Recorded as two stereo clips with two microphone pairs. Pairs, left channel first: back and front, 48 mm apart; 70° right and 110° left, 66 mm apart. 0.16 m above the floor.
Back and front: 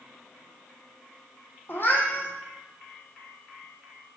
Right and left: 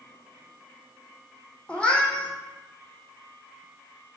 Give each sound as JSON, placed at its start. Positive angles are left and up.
{"t": 1.7, "sound": "a cat meowing", "azimuth_deg": -135, "distance_m": 0.6}